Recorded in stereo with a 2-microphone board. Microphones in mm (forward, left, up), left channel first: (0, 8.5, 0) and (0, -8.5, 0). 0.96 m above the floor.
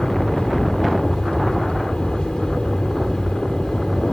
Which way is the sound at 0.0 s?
65° left (ahead or behind).